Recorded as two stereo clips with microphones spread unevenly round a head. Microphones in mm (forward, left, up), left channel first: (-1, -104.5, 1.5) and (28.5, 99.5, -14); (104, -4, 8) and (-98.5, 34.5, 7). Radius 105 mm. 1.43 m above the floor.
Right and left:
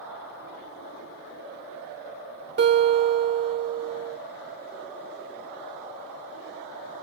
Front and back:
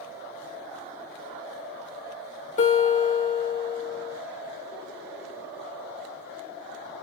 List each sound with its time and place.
2.6 s a guitar: 45° left, 3 m